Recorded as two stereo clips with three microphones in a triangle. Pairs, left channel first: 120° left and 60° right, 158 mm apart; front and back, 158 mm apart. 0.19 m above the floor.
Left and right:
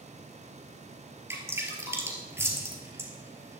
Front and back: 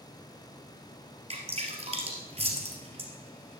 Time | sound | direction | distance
1.3 | dripping | 135° right | 2.5 m